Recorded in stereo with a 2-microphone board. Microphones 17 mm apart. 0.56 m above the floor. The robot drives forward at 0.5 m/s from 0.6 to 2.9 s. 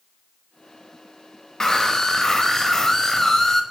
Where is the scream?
30° left (ahead or behind), 2.5 m; by 3.6 s 25° left (ahead or behind), 3 m.